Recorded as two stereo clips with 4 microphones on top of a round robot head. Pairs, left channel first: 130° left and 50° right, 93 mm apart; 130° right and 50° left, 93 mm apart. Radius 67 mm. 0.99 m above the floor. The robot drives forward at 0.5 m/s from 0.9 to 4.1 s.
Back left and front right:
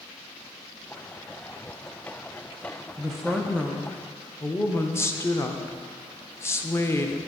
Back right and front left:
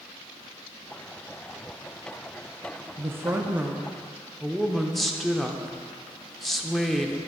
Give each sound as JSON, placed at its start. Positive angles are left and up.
{"t": 3.0, "sound": "a woman speaking", "azimuth_deg": 30, "distance_m": 0.7}